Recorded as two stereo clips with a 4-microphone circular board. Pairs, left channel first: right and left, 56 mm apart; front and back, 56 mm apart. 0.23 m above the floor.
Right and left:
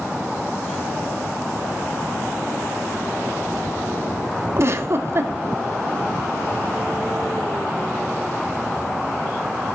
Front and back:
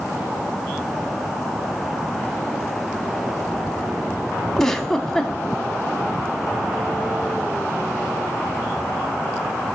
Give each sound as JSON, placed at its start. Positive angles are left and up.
{"t": 4.6, "sound": "a giggle", "azimuth_deg": 80, "distance_m": 0.6}